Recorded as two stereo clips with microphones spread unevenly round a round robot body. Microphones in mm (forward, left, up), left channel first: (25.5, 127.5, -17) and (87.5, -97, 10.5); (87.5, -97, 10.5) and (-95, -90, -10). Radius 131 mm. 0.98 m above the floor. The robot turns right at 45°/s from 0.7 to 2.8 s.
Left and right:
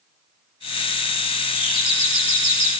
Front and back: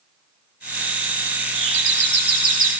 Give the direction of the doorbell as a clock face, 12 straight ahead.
6 o'clock.